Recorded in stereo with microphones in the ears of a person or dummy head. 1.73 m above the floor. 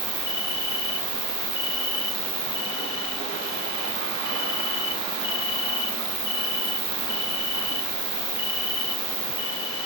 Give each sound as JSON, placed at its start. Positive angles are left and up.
{"t": 0.0, "sound": "an insect", "side_deg": -15, "distance_m": 1.1}